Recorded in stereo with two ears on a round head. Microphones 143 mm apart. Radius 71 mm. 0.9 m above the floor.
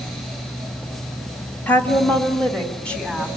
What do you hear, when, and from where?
1.7 s a woman speaking: 10° left (ahead or behind), 1.8 m; by 3.3 s 5° left (ahead or behind), 3.5 m